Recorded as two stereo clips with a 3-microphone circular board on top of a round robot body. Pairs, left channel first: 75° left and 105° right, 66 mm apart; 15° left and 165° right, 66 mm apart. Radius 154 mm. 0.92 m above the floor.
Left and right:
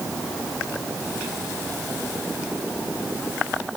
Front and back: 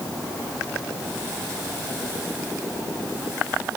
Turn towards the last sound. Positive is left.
No sound to turn to.